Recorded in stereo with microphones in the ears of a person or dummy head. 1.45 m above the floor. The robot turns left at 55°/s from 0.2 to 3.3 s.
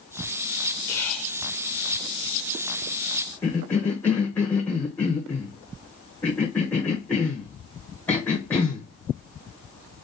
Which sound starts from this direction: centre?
A cough, at 3.4 s.